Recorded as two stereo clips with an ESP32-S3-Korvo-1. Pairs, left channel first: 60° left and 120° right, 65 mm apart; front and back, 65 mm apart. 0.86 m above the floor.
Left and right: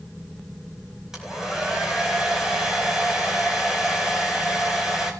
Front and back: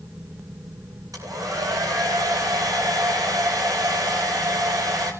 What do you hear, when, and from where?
1.1 s a hair dryer: 160° left, 5.5 m